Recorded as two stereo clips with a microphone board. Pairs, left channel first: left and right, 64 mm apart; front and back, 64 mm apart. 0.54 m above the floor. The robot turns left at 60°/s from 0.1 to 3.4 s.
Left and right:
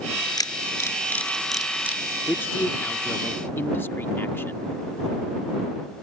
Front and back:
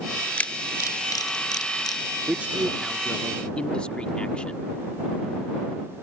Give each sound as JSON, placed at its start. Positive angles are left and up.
{"t": 0.4, "sound": "a camera shutter", "azimuth_deg": 70}
{"t": 2.3, "sound": "a man speaking", "azimuth_deg": 130}